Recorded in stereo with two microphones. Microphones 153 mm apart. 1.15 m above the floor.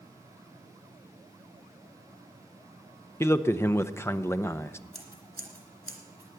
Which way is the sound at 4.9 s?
80° right.